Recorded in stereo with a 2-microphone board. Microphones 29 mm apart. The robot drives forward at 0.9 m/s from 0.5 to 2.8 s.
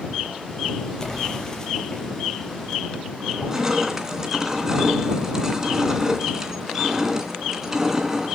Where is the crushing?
15° right (ahead or behind), 2.5 m.